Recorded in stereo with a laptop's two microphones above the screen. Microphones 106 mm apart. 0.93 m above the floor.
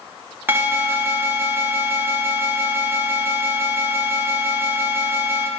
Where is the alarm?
20° right (ahead or behind), 0.8 m.